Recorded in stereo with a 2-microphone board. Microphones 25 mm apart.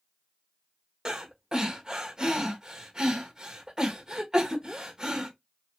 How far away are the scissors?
No scissors in this recording.